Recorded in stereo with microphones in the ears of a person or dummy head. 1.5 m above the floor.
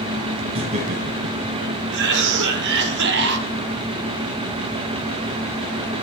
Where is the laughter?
35° right (ahead or behind), 1.1 m; by 1.8 s 65° right (ahead or behind), 0.8 m.